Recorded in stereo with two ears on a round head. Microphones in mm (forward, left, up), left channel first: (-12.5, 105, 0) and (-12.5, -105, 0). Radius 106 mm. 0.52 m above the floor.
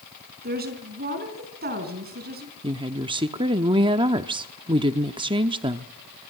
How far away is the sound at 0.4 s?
About 4.5 m.